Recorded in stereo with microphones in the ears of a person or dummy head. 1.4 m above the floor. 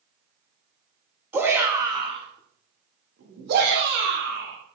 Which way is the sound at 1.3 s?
10° right (ahead or behind).